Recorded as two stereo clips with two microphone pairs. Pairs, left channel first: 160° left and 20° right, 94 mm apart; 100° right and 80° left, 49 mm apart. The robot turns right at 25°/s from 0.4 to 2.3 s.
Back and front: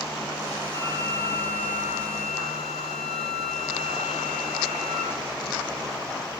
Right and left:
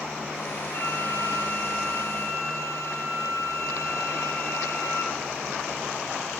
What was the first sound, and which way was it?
A flute, 150° right.